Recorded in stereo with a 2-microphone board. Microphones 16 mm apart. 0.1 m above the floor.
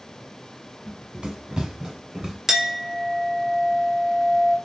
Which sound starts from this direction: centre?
A clink, at 2.5 s.